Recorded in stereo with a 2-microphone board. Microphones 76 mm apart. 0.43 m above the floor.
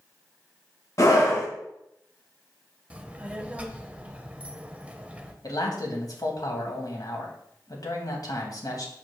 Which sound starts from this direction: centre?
A child speaking, at 2.9 s.